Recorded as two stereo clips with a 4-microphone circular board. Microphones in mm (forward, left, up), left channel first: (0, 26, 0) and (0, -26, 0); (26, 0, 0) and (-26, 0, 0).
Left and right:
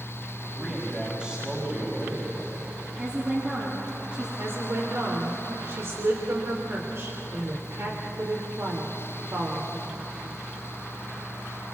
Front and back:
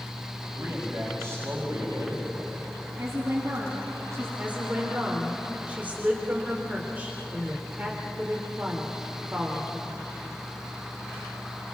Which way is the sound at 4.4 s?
125° right.